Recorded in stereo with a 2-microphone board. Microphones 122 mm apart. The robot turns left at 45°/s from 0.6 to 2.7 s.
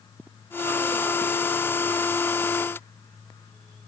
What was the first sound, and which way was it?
Only background noise.